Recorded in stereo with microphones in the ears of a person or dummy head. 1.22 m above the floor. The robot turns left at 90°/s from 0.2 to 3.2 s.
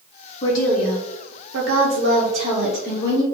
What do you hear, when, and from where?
0.4 s a woman speaking: 30° left, 0.6 m; by 3.2 s 140° left, 0.6 m